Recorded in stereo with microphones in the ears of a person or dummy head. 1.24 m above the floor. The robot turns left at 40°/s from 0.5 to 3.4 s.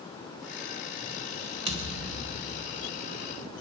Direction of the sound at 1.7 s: 145° right.